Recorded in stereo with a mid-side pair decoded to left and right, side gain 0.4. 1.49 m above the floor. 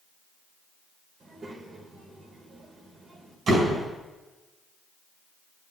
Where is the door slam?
55° right, 4.5 m.